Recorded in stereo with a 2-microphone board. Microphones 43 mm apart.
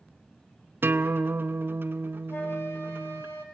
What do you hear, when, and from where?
0.8 s a guitar: 55° right (ahead or behind), 0.7 m
2.3 s a flute: 70° left (ahead or behind), 3 m